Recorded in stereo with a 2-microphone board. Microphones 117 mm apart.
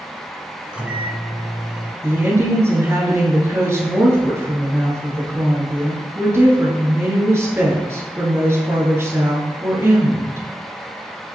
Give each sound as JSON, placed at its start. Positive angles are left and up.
{"t": 0.7, "sound": "a microwave", "side_deg": -10, "distance_m": 1.3}
{"t": 2.0, "sound": "a woman speaking", "side_deg": -20, "distance_m": 2.0}